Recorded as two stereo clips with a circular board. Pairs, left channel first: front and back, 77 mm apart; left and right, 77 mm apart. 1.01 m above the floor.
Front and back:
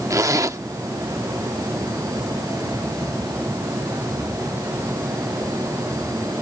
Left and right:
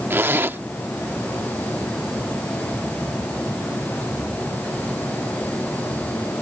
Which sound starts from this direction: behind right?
A zipper, at 0.1 s.